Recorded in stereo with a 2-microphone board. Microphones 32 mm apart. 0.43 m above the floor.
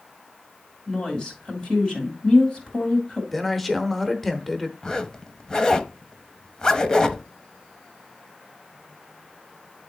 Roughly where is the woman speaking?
Left.